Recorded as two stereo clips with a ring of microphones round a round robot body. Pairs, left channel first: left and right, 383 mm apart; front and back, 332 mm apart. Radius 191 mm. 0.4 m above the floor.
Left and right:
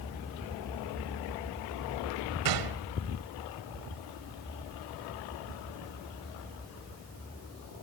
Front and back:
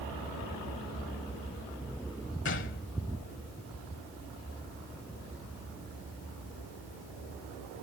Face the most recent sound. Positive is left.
turn(degrees=-60)